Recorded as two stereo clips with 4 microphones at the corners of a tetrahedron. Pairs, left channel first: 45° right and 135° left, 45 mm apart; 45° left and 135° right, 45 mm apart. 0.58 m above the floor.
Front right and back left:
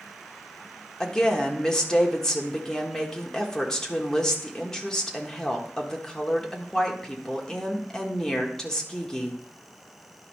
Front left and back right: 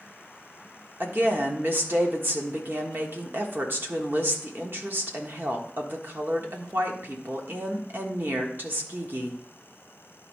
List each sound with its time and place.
1.0 s a woman speaking: 120° right, 1.3 m